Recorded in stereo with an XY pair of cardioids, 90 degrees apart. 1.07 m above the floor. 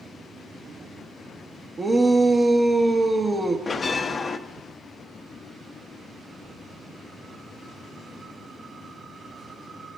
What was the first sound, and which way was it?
A shout, 35° right.